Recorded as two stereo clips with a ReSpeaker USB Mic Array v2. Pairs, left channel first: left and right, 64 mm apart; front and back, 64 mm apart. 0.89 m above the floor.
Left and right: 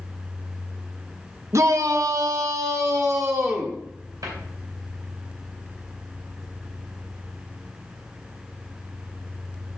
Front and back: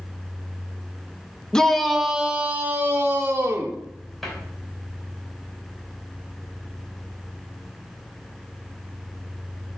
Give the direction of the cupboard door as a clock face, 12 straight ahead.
3 o'clock.